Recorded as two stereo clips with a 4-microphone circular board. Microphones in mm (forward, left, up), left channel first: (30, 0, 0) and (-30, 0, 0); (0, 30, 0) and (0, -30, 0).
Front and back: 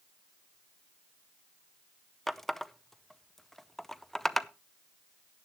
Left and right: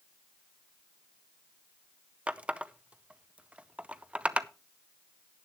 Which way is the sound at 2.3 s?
80° right.